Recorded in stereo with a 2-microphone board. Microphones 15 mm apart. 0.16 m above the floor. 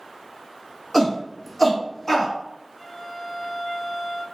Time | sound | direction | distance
0.9 | a shout | 5° right (ahead or behind) | 1.6 m
2.8 | a violin | 5° right (ahead or behind) | 0.7 m